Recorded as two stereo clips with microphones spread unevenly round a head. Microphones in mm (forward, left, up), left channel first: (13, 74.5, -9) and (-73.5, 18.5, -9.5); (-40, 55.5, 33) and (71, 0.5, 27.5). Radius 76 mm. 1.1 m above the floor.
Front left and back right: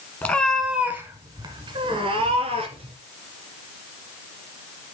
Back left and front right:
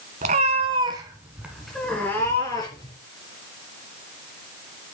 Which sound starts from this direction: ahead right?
A cat meowing, at 0.2 s.